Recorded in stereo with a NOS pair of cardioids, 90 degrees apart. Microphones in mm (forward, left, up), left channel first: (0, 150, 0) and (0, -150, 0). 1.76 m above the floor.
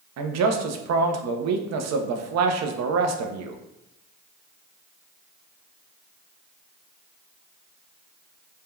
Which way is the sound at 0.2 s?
60° right.